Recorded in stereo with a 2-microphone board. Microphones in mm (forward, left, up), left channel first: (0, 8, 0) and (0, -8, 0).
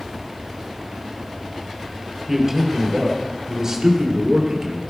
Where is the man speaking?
20° right (ahead or behind), 3 m; by 4.8 s 50° right (ahead or behind), 2.5 m.